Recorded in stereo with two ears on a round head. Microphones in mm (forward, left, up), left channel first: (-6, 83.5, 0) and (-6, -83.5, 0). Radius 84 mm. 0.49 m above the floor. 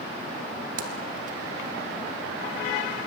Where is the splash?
45° right (ahead or behind), 1.5 m.